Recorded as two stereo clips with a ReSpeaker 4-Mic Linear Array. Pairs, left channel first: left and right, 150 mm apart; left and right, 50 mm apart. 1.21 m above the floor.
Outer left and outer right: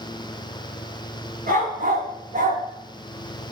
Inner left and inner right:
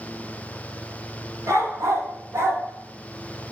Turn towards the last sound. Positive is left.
turn(degrees=-65)  # may be behind; listen again after turning